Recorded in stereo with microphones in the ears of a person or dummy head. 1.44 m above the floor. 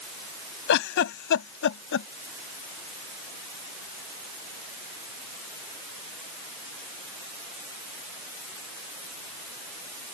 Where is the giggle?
60° left (ahead or behind).